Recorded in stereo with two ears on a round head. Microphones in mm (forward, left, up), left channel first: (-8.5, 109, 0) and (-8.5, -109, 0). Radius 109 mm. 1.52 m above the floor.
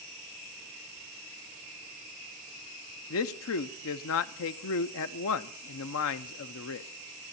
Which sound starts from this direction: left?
A man speaking, at 3.1 s.